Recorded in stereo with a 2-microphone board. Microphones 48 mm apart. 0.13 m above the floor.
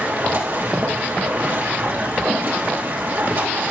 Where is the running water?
45° right (ahead or behind), 3.5 m.